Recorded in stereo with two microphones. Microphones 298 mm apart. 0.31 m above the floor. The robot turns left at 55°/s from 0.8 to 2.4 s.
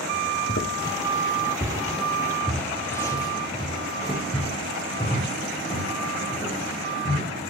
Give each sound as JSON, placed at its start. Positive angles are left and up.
{"t": 0.5, "sound": "footsteps", "side_deg": 40, "distance_m": 1.8}